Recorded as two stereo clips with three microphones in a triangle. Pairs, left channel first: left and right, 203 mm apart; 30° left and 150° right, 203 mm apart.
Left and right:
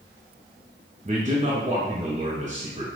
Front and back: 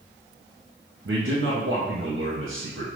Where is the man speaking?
145° right, 0.9 m.